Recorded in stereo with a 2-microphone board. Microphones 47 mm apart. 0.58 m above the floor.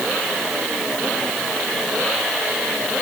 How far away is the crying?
No crying in this recording.